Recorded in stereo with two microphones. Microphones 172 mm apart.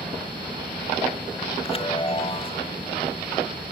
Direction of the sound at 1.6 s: 30° left (ahead or behind).